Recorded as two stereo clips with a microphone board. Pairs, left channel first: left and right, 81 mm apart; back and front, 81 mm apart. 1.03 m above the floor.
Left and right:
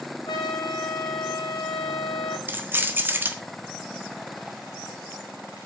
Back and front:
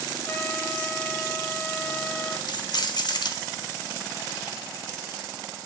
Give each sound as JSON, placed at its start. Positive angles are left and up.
{"t": 0.3, "sound": "a trumpet", "azimuth_deg": 110, "distance_m": 2.0}
{"t": 2.5, "sound": "keys jangling", "azimuth_deg": -155, "distance_m": 1.5}